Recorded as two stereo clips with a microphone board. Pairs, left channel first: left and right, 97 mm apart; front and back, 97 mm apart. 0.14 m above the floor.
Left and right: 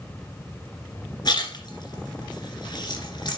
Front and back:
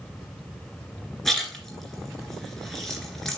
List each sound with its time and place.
1.2 s a splash: 85° left, 2.5 m